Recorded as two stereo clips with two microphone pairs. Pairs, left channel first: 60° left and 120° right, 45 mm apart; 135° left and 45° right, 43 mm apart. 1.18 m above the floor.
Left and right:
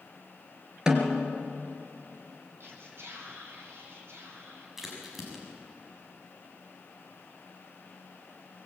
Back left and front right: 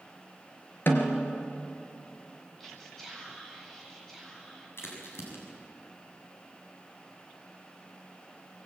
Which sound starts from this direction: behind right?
Whispering, at 2.6 s.